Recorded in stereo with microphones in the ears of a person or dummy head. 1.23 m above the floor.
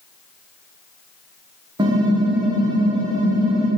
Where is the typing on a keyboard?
20° right (ahead or behind), 1.3 m.